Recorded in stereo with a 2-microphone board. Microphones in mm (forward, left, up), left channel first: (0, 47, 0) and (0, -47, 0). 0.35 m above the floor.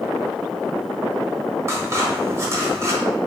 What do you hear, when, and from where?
1.7 s scissors: 30° right (ahead or behind), 1.3 m